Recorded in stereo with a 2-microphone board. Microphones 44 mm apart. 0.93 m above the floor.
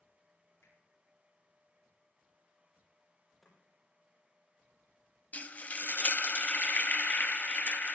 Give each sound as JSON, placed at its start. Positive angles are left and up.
{"t": 0.6, "sound": "a finger snap", "side_deg": 65, "distance_m": 8.5}
{"t": 3.4, "sound": "chopping", "side_deg": 0, "distance_m": 7.0}
{"t": 5.3, "sound": "frying", "side_deg": 35, "distance_m": 0.8}